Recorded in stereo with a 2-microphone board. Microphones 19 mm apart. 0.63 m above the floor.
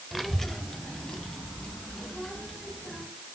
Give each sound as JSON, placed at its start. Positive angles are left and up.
{"t": 0.1, "sound": "a child speaking", "side_deg": -5, "distance_m": 1.1}